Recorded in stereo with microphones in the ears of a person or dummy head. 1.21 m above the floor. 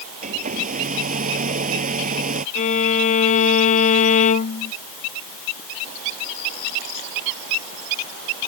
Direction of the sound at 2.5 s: 45° left (ahead or behind).